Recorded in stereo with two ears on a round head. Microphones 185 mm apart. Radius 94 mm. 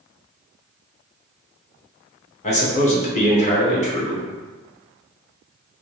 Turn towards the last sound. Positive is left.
turn(degrees=35)  # may be behind; listen again after turning